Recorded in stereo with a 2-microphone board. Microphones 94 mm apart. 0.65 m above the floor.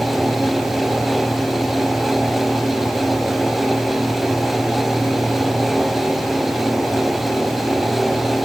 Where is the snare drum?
No snare drum in this recording.